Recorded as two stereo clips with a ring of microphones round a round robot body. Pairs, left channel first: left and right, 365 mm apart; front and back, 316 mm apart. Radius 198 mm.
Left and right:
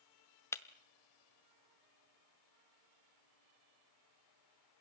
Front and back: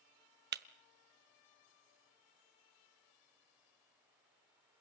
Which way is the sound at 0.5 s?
165° left.